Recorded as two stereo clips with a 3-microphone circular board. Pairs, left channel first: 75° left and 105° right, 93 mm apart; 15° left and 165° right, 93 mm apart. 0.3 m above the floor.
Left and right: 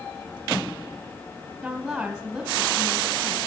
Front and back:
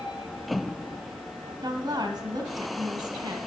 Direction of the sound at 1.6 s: 170° left.